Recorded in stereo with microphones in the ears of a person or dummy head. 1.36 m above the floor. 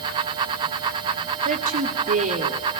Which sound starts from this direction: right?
A woman speaking, at 1.4 s.